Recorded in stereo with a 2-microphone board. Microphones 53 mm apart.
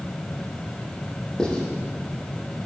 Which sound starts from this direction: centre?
Writing, at 1.4 s.